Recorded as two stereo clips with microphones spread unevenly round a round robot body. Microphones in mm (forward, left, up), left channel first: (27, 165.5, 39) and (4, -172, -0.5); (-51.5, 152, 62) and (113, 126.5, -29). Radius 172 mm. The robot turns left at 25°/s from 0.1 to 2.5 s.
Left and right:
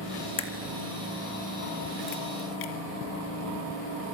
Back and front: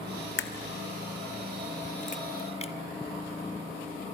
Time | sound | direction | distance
0.4 | a crack | 160° left | 2.5 m